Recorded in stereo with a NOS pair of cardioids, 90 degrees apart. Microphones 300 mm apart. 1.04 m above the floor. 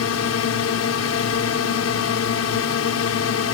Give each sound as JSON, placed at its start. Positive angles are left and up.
{"t": 0.0, "sound": "a drone", "azimuth_deg": 60}